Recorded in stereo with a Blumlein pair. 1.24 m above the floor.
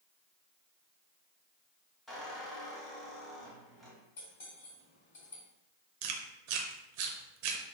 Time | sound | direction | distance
2.1 | a squeak | 5° left | 1.6 m
4.2 | cutlery clinking | 55° left | 1.8 m
6.0 | chewing | 45° right | 0.5 m